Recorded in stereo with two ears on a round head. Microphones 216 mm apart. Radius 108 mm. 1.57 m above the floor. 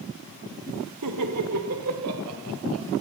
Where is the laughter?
85° right, 1.0 m; by 2.9 s 65° right (ahead or behind), 3 m.